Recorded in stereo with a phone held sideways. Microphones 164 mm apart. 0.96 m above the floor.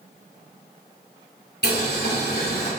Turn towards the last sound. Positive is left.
turn(degrees=80)